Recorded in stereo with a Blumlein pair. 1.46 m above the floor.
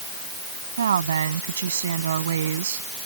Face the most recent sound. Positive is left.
turn(degrees=-65)